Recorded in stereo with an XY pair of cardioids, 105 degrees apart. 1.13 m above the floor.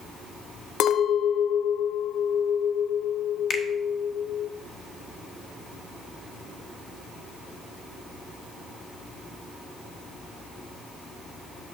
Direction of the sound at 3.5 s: 45° left.